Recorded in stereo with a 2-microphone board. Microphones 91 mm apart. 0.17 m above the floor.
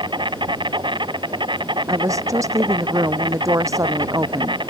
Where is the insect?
60° right (ahead or behind).